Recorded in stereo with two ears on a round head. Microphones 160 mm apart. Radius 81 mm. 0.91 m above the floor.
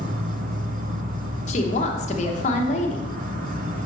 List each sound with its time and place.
0.0 s an insect: 50° right (ahead or behind), 0.9 m
1.5 s a woman speaking: 40° left (ahead or behind), 1.0 m